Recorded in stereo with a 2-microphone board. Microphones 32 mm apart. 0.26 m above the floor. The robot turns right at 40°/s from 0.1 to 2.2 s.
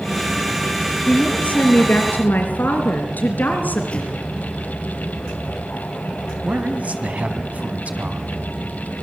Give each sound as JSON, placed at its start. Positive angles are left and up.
{"t": 1.1, "sound": "a woman speaking", "azimuth_deg": 35, "distance_m": 4.5}
{"t": 3.9, "sound": "an explosion", "side_deg": 40, "distance_m": 4.5}
{"t": 6.4, "sound": "a man speaking", "side_deg": -55, "distance_m": 2.5}